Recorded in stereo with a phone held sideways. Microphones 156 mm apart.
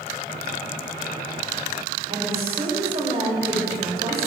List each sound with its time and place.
2.1 s a woman speaking: 35° right (ahead or behind), 5.5 m